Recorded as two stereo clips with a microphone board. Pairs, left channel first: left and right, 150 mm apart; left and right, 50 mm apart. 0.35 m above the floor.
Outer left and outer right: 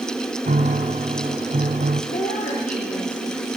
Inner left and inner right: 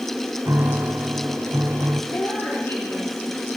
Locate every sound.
0.5 s a piano: 65° right (ahead or behind), 1.4 m
2.1 s a woman speaking: 65° left (ahead or behind), 9 m